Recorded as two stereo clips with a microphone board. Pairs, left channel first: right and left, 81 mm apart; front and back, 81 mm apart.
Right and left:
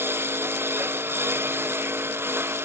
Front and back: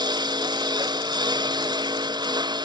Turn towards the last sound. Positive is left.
turn(degrees=150)